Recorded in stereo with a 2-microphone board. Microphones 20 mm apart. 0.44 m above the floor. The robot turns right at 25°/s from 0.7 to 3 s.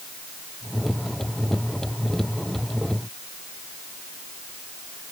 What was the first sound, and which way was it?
Only background noise.